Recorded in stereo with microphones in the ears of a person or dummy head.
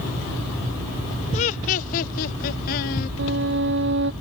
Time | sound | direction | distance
1.3 | laughter | 30° left (ahead or behind) | ?
3.2 | a violin | 65° right (ahead or behind) | ?